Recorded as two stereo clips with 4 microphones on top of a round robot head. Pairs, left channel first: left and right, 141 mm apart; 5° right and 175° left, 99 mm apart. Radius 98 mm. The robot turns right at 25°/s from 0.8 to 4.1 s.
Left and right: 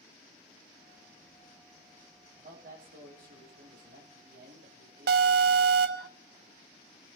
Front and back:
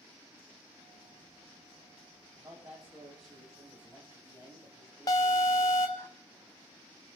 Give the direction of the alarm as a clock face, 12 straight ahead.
2 o'clock.